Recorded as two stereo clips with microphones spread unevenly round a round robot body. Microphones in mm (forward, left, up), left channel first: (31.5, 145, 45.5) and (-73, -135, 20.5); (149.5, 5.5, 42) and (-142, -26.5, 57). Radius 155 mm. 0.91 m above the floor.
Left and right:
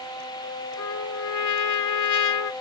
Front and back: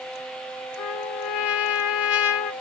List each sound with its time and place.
0.8 s a trumpet: 35° left, 1.2 m